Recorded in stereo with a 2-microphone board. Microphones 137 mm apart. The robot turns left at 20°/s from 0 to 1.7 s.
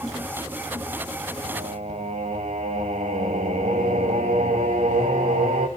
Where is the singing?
65° right (ahead or behind), 3 m; by 5.7 s 60° right (ahead or behind), 3 m.